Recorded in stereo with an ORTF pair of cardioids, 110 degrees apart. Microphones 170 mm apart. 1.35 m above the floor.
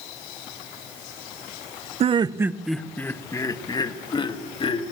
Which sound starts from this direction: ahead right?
Laughter, at 2.0 s.